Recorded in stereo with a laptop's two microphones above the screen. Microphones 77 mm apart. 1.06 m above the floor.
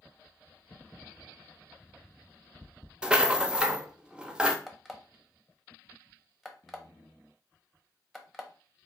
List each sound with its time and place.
3.0 s a rattle: 10° right (ahead or behind), 0.6 m
4.7 s an alarm clock: centre (ahead or behind), 0.9 m